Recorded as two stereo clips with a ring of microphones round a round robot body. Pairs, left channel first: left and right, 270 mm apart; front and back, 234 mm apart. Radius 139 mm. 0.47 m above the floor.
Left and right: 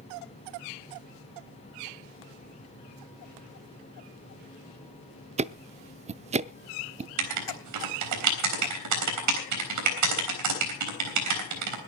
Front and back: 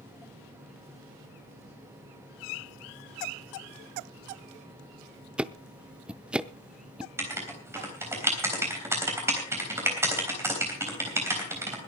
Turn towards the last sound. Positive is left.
turn(degrees=-100)